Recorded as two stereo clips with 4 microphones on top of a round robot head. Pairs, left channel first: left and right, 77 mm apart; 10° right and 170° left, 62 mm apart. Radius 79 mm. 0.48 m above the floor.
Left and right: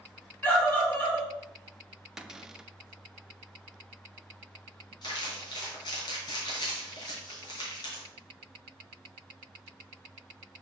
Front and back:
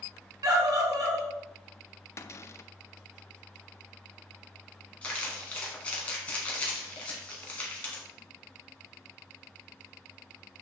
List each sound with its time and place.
0.4 s a scream: 155° left, 4 m
2.2 s a cupboard door: 10° right, 0.6 m
5.0 s crumpling: 55° left, 2.5 m